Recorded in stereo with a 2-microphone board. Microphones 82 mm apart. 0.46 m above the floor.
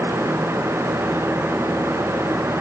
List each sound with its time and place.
Only background noise.